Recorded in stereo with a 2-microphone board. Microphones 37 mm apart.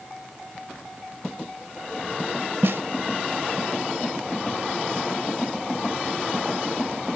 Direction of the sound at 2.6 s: 75° right (ahead or behind).